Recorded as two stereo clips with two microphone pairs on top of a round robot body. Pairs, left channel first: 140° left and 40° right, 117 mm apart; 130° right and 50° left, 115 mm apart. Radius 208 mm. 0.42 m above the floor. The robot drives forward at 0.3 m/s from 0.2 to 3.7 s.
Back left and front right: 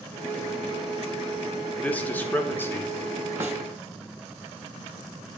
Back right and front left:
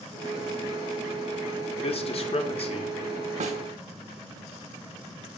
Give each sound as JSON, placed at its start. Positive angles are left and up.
{"t": 1.8, "sound": "a man speaking", "azimuth_deg": -145, "distance_m": 1.7}
{"t": 3.4, "sound": "a snare drum", "azimuth_deg": 30, "distance_m": 0.5}